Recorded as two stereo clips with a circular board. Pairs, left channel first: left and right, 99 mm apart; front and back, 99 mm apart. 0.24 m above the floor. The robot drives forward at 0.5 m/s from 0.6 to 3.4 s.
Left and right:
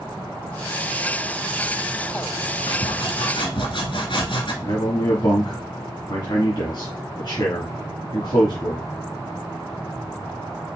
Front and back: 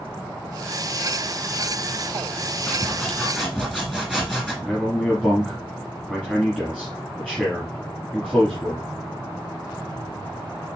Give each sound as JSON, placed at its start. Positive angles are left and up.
{"t": 2.7, "sound": "sawing", "azimuth_deg": 80, "distance_m": 1.7}
{"t": 4.6, "sound": "a man speaking", "azimuth_deg": 100, "distance_m": 2.0}